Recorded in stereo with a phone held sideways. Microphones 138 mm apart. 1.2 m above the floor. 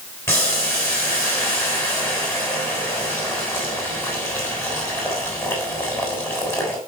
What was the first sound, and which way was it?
Boiling, 20° left (ahead or behind).